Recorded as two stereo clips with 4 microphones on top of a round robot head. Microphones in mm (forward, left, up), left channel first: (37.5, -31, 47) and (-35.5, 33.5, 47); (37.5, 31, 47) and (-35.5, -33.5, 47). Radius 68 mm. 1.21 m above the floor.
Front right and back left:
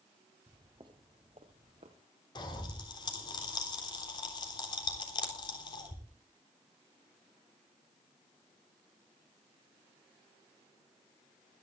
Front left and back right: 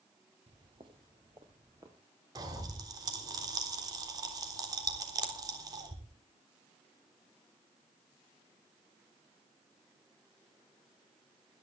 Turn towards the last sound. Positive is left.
turn(degrees=-85)